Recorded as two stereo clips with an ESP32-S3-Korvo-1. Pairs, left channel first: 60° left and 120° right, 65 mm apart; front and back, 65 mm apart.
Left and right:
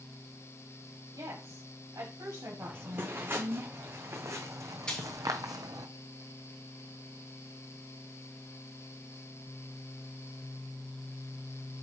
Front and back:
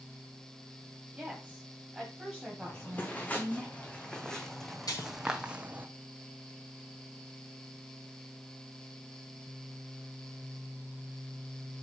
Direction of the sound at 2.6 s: 60° right.